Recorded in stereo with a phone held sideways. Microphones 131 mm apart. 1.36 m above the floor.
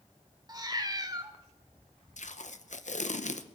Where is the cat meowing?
30° right (ahead or behind), 1.3 m.